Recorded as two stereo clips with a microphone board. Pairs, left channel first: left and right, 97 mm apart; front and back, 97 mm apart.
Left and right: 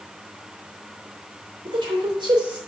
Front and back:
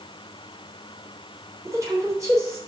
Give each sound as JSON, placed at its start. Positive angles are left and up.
{"t": 1.6, "sound": "a woman speaking", "azimuth_deg": -125, "distance_m": 3.0}